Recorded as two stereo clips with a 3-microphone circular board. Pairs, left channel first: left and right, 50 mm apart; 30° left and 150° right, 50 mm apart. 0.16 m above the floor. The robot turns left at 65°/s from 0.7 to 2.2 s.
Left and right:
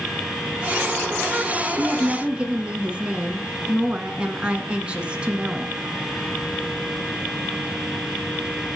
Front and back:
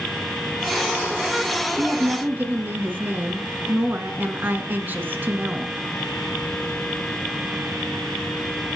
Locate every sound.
1.8 s a woman speaking: 120° right, 1.4 m; by 5.8 s 145° right, 1.4 m